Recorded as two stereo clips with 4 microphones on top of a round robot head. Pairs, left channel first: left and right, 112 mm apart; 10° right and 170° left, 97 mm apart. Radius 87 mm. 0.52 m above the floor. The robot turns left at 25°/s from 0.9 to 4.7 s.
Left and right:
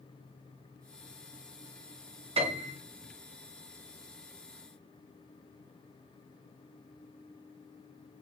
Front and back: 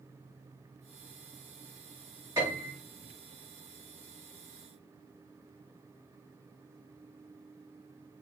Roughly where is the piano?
Behind right.